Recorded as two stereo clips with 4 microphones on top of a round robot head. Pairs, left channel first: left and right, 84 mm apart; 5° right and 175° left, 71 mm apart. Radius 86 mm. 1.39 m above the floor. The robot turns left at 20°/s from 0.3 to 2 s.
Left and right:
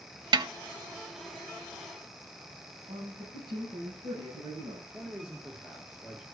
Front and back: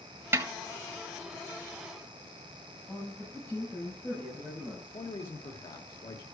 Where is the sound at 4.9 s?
10° right, 1.9 m.